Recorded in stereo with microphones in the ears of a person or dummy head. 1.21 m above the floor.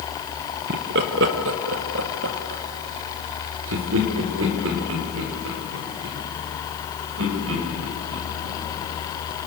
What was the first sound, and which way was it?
Laughter, 60° right (ahead or behind).